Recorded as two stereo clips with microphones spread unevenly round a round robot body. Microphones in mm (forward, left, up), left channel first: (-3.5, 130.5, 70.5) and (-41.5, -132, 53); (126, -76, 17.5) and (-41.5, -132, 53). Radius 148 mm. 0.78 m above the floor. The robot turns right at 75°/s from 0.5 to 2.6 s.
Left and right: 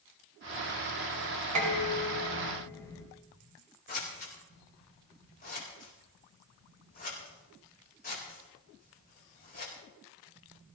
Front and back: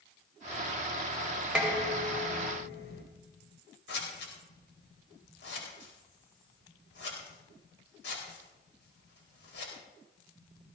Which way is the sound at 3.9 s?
25° left.